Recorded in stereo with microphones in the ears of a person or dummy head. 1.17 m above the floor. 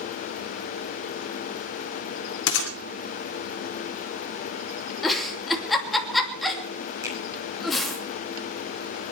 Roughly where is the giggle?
Centre.